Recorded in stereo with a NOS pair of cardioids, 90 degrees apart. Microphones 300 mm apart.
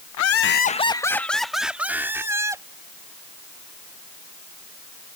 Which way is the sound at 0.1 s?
65° left.